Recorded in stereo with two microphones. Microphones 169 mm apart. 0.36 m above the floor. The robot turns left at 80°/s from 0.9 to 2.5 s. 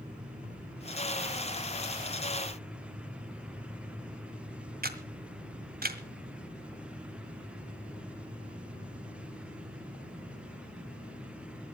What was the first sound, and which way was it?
A camera shutter, 60° right (ahead or behind).